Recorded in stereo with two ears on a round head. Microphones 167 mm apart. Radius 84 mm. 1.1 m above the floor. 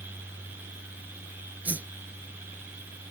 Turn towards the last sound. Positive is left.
turn(degrees=-10)  # may be behind; listen again after turning